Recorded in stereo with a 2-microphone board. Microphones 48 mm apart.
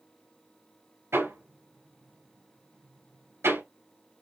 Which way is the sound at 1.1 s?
75° right (ahead or behind).